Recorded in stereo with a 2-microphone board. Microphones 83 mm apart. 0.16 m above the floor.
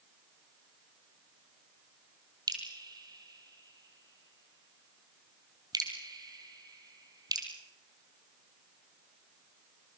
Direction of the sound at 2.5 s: 50° right (ahead or behind).